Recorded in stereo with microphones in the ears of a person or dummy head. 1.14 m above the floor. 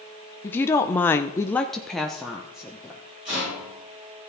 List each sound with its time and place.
0.4 s a woman speaking: 15° left (ahead or behind), 0.7 m; by 3.0 s 10° right (ahead or behind), 1.0 m
3.2 s a rattle: 30° right (ahead or behind), 5 m